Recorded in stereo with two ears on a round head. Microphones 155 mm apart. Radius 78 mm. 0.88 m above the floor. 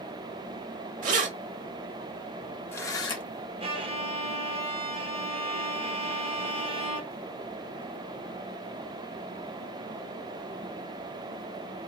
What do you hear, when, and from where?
1.0 s keys jangling: 50° right (ahead or behind), 1.3 m; by 3.2 s 30° left (ahead or behind), 1.3 m
3.6 s a violin: 30° right (ahead or behind), 0.8 m